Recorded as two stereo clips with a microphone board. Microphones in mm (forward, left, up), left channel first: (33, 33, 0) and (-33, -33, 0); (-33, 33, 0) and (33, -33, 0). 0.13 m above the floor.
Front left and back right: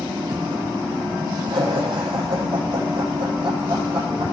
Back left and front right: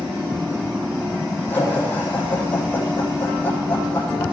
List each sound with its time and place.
1.5 s laughter: 160° right, 7 m